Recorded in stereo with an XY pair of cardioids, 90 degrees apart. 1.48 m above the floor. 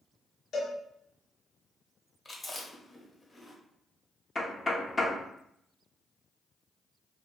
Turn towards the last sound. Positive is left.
turn(degrees=25)